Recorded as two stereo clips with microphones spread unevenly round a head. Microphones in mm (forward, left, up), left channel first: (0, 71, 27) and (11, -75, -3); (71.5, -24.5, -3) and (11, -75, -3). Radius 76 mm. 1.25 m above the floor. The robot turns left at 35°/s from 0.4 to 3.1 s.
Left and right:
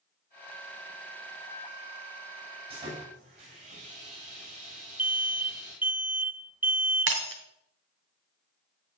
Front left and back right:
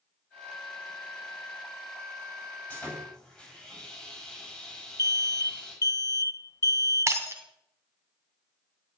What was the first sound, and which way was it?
Sawing, 30° right.